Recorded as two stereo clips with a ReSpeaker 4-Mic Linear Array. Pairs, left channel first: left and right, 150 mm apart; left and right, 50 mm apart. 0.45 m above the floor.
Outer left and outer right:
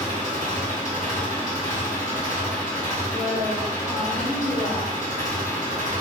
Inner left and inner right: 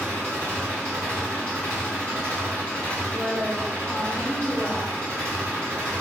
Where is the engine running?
60° right (ahead or behind), 2.0 m.